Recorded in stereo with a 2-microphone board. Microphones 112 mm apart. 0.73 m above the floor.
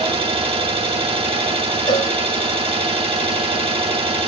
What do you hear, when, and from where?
0.0 s an engine running: 55° right (ahead or behind), 3 m
1.9 s a cowbell: 40° left (ahead or behind), 1.8 m